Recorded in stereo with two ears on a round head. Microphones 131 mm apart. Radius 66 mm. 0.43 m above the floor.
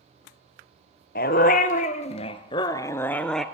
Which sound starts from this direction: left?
A dog barking, at 1.1 s.